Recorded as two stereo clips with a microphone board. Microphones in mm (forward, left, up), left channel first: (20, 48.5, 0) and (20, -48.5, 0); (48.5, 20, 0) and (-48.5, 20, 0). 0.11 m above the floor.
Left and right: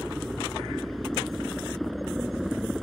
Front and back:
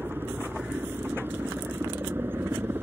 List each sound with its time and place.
0.0 s a helicopter: straight behind